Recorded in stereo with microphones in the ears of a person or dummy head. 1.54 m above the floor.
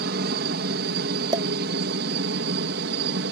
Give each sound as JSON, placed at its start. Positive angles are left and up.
{"t": 0.0, "sound": "a helicopter", "side_deg": -60}
{"t": 1.3, "sound": "a pop", "side_deg": -30}